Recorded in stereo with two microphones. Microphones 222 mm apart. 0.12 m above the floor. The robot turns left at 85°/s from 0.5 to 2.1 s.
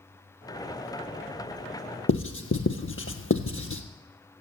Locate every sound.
2.1 s writing: 70° left (ahead or behind), 1.1 m